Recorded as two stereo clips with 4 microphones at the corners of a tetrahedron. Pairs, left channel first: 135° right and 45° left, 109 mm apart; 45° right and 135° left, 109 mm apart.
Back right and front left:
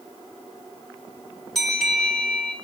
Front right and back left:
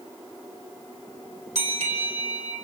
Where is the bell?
135° left, 4.5 m.